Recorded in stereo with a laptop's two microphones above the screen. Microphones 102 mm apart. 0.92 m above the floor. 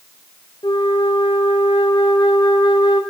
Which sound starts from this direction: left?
A flute, at 0.6 s.